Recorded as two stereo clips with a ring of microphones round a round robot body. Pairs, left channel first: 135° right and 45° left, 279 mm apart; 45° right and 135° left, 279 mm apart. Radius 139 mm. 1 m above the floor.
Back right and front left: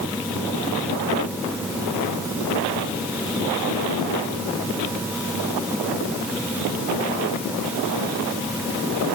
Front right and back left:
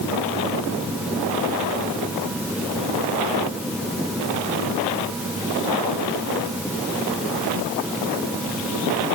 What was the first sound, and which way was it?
Only background noise.